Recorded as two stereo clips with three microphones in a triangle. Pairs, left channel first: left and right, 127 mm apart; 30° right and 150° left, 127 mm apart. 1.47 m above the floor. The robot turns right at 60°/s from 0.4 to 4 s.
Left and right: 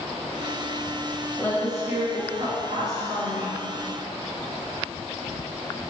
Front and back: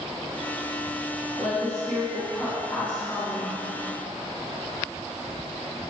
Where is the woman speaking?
160° left, 1.7 m; by 3.6 s 65° right, 1.7 m.